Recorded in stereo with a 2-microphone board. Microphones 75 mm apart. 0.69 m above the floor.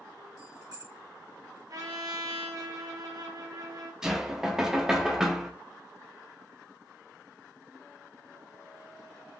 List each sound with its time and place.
0.4 s keys jangling: 65° right (ahead or behind), 1.8 m
1.7 s a trumpet: 55° right (ahead or behind), 0.8 m
4.0 s knocking: 5° right (ahead or behind), 0.6 m